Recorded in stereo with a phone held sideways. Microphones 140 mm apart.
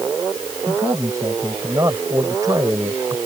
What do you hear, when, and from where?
0.7 s a man speaking: 20° right (ahead or behind); by 3.2 s 30° right (ahead or behind)